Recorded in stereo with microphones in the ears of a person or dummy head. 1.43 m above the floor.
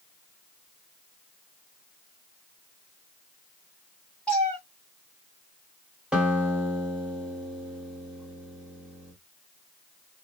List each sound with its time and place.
4.3 s a cat meowing: 5° left (ahead or behind), 1.4 m
6.1 s a guitar: 10° right (ahead or behind), 1.2 m